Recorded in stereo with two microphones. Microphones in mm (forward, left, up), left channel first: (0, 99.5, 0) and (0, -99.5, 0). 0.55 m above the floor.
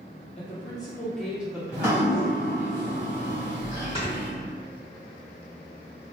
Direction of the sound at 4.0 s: 25° left (ahead or behind).